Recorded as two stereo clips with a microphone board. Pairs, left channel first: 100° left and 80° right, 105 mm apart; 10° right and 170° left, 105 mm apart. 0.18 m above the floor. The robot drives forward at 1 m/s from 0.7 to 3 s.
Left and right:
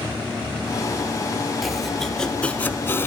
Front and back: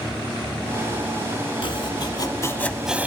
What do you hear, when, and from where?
1.6 s chopping: 10° left, 1.4 m; by 3.1 s 115° left, 0.6 m